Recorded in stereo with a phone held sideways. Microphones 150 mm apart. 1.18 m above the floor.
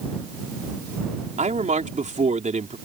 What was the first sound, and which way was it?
A man speaking, 55° right (ahead or behind).